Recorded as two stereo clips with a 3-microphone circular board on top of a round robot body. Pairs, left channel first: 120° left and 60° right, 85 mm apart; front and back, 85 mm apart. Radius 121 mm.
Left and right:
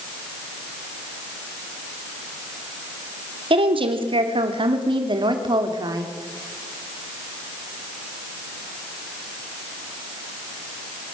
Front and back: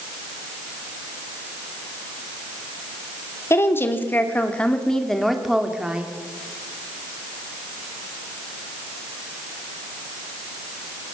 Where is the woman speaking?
60° right, 3 m; by 6.1 s 105° right, 3 m.